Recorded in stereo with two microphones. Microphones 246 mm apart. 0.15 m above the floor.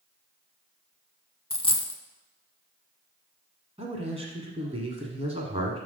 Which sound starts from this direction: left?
A dropped coin, at 1.5 s.